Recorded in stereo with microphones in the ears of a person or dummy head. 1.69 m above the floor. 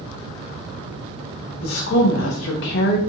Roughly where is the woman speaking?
Left.